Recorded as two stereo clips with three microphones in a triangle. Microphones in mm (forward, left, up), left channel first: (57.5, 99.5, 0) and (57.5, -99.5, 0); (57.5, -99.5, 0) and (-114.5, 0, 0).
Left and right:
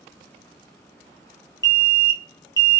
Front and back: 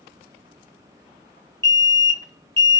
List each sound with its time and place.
1.6 s an alarm: 130° left, 1.9 m